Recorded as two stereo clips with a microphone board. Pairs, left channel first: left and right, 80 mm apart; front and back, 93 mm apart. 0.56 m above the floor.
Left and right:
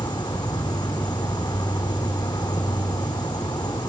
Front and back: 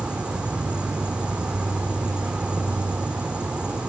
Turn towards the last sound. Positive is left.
turn(degrees=100)